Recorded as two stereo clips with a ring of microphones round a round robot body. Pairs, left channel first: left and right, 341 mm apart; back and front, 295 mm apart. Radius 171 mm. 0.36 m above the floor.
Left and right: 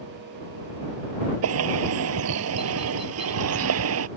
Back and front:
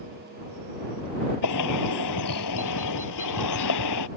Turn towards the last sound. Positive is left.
turn(degrees=-140)